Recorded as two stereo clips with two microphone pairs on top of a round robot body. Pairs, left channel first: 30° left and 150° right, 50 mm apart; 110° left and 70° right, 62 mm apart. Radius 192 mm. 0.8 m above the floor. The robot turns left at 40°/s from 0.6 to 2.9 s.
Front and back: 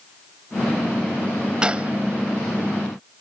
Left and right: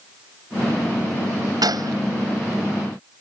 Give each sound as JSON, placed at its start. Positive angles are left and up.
{"t": 1.6, "sound": "a gunshot", "azimuth_deg": -80}